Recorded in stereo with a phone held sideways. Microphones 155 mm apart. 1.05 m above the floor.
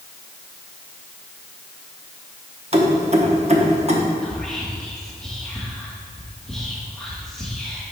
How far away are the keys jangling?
About 0.9 m.